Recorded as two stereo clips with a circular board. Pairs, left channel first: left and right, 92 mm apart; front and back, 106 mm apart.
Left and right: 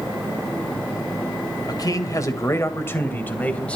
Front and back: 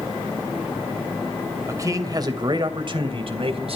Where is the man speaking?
125° left, 2.5 m; by 3.8 s 165° left, 3 m.